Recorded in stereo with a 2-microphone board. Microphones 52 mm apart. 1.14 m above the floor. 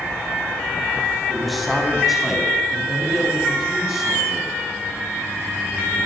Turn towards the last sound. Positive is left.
turn(degrees=-5)  # may be behind; listen again after turning